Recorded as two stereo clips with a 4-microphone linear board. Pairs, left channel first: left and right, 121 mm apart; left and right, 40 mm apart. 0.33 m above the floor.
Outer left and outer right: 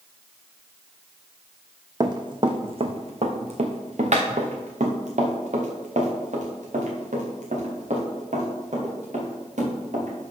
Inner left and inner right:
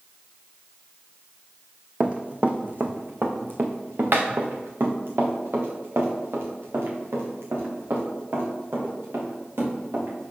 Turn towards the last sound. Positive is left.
turn(degrees=-85)